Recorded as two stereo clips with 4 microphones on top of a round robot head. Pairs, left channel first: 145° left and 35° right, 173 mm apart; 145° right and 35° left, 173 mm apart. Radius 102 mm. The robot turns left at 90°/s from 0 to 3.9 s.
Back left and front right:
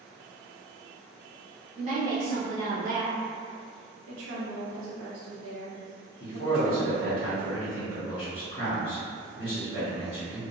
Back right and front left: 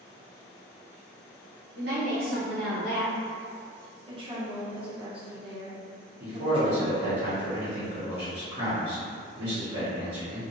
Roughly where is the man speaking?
Left.